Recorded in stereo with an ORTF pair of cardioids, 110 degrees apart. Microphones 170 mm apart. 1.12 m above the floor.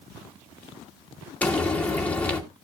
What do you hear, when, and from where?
1.4 s frying: 10° left, 2.5 m